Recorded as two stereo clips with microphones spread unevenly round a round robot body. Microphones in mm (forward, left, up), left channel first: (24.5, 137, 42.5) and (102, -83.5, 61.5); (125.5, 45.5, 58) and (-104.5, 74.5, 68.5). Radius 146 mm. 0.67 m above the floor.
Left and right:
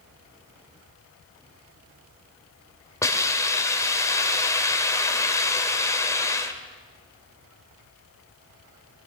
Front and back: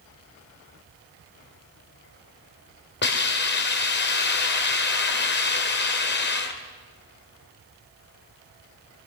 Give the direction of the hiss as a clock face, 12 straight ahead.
11 o'clock.